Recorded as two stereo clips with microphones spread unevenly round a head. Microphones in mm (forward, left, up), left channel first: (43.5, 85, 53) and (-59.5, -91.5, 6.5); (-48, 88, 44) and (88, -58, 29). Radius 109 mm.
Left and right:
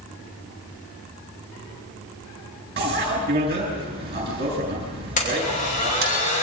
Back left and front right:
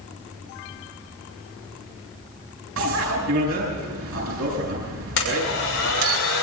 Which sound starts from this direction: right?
A bicycle bell, at 2.8 s.